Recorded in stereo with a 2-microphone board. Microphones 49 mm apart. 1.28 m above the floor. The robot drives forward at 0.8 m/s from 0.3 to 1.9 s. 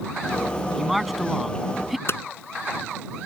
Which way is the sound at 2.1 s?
55° left (ahead or behind).